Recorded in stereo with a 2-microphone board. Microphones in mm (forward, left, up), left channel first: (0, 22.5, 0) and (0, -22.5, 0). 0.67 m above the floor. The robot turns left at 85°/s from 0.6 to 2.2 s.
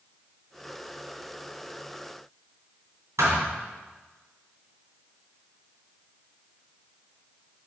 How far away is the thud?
About 2.5 m.